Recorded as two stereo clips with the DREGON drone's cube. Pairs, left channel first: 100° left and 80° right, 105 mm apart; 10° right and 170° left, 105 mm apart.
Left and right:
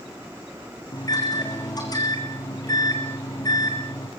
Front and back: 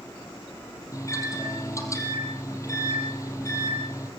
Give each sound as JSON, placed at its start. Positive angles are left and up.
{"t": 0.9, "sound": "a microwave", "azimuth_deg": 50, "distance_m": 3.5}